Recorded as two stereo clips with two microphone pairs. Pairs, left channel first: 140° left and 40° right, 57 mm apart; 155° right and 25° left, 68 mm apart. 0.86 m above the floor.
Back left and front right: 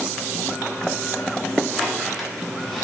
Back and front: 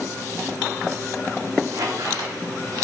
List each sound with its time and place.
1.7 s a squeak: 55° left, 1.0 m